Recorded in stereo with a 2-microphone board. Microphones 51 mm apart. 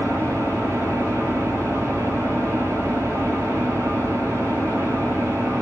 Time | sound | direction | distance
0.0 | an engine running | 85° right | 10 m